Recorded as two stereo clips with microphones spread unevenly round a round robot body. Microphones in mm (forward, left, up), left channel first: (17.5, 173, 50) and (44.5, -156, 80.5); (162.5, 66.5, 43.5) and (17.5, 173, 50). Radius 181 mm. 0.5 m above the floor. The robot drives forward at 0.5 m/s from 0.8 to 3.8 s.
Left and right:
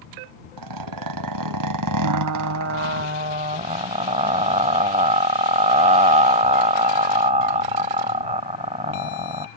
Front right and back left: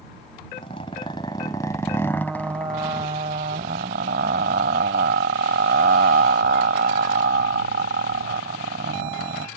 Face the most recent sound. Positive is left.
turn(degrees=-155)